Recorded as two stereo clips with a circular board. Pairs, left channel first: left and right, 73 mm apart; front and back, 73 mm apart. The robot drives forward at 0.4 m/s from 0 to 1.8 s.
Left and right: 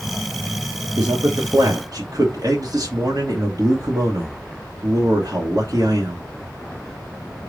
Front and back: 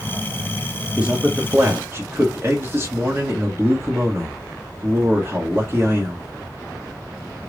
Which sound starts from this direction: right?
A man speaking, at 1.0 s.